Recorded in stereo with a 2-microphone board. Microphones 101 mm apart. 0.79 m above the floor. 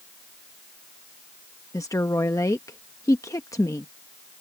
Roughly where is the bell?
I don't hear a bell.